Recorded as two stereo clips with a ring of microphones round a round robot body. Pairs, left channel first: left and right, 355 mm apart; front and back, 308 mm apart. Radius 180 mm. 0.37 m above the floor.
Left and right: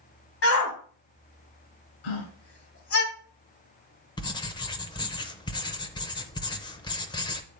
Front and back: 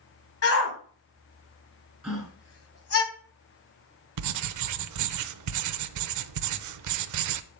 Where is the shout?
40° left, 2.5 m.